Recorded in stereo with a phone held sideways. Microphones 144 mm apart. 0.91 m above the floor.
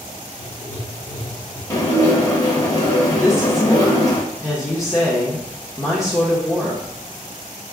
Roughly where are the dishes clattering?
Left.